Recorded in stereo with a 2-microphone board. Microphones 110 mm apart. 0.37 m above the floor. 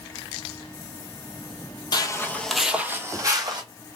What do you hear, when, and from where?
1.9 s footsteps: 40° left (ahead or behind), 0.6 m; by 3.6 s 40° right (ahead or behind), 1.0 m